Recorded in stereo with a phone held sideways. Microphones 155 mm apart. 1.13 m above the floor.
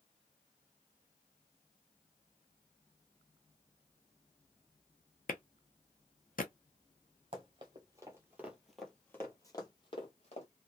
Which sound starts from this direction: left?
A clap, at 5.3 s.